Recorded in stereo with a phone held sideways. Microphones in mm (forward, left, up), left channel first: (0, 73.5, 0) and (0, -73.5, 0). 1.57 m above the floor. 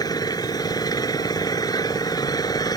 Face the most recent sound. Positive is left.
turn(degrees=25)  # may be behind; listen again after turning